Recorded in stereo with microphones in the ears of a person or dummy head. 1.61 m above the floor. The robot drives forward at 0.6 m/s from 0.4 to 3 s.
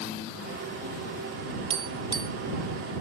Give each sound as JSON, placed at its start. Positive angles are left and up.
{"t": 1.7, "sound": "tapping", "side_deg": -30}